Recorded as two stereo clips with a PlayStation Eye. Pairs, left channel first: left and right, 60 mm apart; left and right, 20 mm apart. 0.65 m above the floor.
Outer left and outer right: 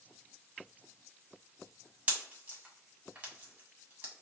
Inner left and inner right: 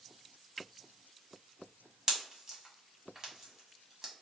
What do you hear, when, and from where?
2.1 s a pop: 25° right (ahead or behind), 1.6 m